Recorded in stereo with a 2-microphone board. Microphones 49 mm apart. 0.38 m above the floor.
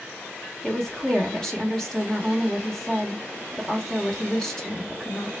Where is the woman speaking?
10° left (ahead or behind), 0.8 m.